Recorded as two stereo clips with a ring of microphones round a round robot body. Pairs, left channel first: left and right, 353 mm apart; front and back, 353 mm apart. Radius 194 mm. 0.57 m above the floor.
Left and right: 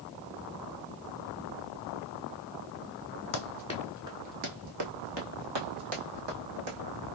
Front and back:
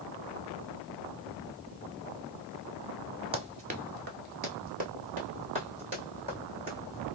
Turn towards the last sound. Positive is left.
turn(degrees=-105)